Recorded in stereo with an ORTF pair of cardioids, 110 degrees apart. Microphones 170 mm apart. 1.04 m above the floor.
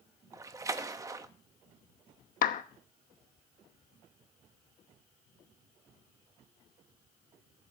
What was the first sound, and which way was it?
A splash, 20° right.